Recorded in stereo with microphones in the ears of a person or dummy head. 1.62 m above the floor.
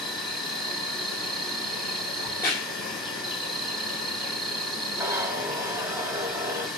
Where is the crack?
10° left (ahead or behind), 2 m.